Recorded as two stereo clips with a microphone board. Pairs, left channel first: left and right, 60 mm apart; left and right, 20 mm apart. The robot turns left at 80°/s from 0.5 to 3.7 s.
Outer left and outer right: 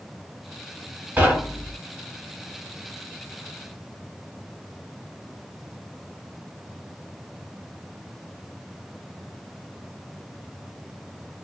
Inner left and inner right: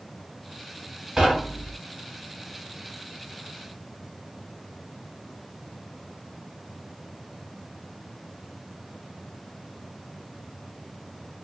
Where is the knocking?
25° right (ahead or behind), 1.5 m; by 1.8 s 15° left (ahead or behind), 1.5 m.